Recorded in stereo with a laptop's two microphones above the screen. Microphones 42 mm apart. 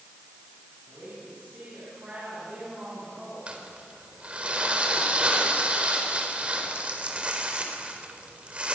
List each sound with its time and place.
0.9 s a woman speaking: 35° right (ahead or behind), 7.5 m
3.5 s crumpling: 30° right (ahead or behind), 4 m